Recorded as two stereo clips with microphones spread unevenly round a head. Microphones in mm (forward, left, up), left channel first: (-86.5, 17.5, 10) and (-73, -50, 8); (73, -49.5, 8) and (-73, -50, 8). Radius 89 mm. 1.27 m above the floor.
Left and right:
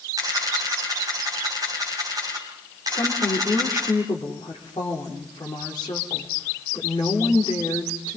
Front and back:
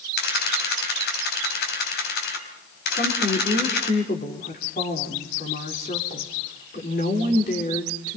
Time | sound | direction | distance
0.2 | a camera shutter | 5° right | 4.5 m
2.9 | a woman speaking | 50° left | 4 m